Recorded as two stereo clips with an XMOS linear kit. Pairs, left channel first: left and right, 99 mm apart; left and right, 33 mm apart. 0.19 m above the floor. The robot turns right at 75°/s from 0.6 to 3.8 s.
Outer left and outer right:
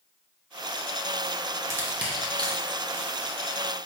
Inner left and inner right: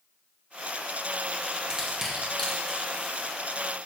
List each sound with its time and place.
1.7 s crushing: 30° right (ahead or behind), 2 m; by 3.6 s 50° left (ahead or behind), 2 m